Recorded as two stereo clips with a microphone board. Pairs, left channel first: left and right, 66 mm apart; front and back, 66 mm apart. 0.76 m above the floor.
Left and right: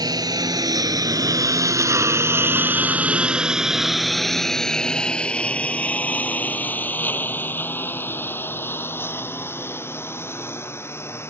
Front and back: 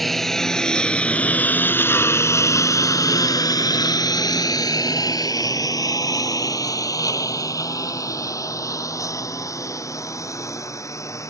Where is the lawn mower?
90° right; by 11.3 s 40° left.